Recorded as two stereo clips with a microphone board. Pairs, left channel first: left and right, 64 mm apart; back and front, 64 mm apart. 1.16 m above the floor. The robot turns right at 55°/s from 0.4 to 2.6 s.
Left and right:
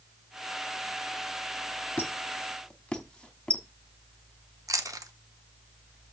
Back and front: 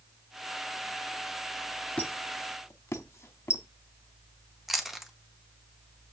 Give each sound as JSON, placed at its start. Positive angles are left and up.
{"t": 2.0, "sound": "a squeak", "azimuth_deg": 125, "distance_m": 0.9}
{"t": 4.7, "sound": "chewing", "azimuth_deg": -85, "distance_m": 0.8}